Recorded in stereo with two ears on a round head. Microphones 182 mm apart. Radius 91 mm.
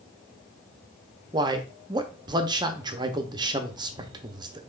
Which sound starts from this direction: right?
A man speaking, at 1.3 s.